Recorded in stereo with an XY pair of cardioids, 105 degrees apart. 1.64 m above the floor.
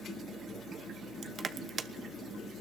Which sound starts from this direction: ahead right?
Crushing, at 1.2 s.